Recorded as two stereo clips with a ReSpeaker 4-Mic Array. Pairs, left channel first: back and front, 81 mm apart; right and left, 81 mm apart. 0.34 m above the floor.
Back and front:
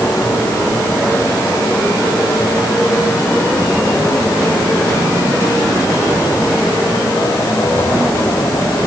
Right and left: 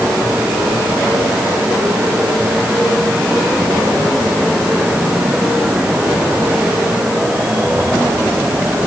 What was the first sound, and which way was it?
Only background noise.